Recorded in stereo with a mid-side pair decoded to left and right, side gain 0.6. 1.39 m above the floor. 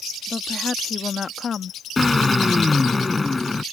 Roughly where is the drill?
Ahead.